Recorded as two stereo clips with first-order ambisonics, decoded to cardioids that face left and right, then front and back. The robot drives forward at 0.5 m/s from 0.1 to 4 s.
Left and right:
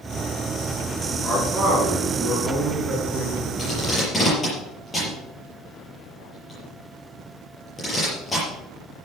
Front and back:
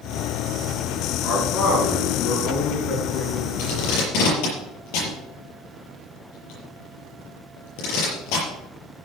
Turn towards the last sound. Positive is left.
turn(degrees=10)